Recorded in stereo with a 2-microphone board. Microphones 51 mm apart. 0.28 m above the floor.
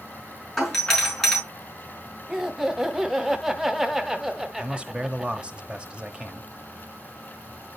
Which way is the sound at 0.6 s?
5° left (ahead or behind).